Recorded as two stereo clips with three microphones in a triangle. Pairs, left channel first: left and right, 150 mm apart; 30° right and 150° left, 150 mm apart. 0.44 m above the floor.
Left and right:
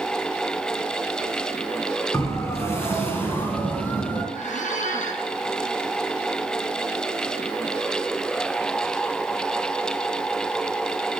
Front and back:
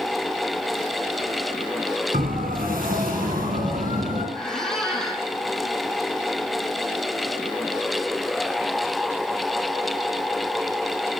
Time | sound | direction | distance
2.1 | a siren | 160° left | 6 m
4.3 | a squeak | 55° left | 5 m